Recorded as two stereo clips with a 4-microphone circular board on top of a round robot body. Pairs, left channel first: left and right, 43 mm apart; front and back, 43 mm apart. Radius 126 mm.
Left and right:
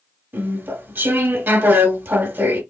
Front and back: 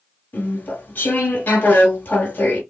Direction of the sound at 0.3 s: 50° right.